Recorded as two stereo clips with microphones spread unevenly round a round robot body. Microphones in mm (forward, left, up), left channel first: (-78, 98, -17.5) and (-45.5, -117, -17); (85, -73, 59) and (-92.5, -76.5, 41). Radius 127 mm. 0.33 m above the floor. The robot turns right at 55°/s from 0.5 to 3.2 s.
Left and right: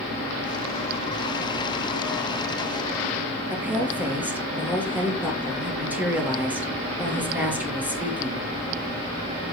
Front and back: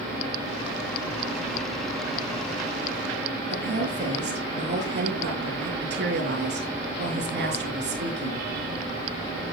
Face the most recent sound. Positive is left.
turn(degrees=-165)